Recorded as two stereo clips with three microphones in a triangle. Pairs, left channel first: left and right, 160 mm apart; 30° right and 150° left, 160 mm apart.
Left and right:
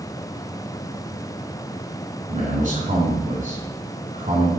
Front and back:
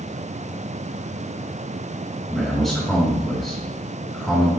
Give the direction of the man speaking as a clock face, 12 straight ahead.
4 o'clock.